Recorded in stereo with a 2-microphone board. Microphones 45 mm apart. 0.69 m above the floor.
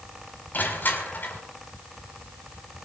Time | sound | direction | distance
0.5 | crushing | 40° left (ahead or behind) | 6 m